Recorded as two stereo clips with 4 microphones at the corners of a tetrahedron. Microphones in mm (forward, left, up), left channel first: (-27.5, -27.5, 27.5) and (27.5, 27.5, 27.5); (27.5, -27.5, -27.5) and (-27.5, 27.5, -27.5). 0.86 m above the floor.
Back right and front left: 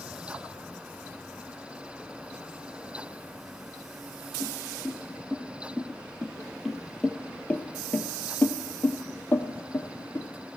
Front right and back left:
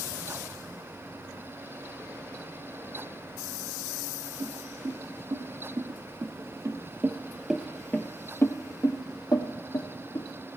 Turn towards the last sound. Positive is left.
turn(degrees=-70)